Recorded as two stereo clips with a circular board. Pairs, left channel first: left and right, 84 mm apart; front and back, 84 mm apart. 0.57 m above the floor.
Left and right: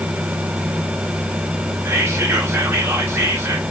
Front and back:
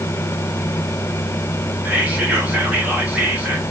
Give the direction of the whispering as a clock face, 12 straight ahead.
4 o'clock.